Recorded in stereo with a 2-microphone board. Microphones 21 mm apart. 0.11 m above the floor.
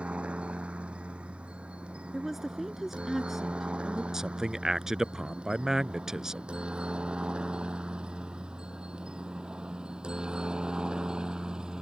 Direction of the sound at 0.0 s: 65° right (ahead or behind).